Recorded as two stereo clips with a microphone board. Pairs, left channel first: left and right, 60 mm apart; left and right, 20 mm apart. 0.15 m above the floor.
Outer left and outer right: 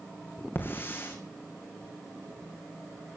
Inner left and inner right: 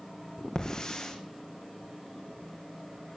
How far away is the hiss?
About 3 m.